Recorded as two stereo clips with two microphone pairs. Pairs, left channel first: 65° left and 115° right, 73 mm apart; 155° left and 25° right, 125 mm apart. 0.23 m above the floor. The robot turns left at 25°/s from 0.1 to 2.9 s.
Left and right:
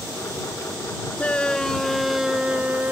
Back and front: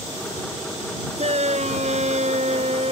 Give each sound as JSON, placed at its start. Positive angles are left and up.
{"t": 1.2, "sound": "a shout", "azimuth_deg": -5}